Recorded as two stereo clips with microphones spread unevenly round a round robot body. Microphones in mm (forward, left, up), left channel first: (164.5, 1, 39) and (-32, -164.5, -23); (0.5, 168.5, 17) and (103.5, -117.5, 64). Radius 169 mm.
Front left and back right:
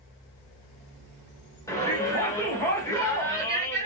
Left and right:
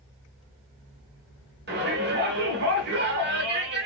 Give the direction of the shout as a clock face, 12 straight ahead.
2 o'clock.